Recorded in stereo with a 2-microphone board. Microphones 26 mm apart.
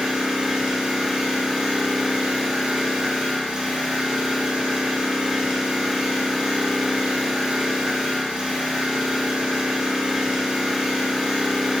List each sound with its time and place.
0.0 s an engine running: 45° right (ahead or behind), 0.7 m